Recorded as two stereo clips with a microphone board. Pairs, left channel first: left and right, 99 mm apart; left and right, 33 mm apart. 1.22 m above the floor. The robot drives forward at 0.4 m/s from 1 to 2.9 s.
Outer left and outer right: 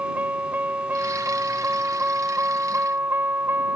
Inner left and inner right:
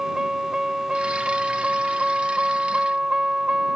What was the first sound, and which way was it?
A vehicle, 20° right (ahead or behind).